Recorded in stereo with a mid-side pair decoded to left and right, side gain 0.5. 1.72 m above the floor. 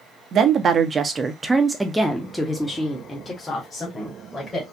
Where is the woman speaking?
55° right, 0.9 m; by 4.6 s 35° left, 1.9 m.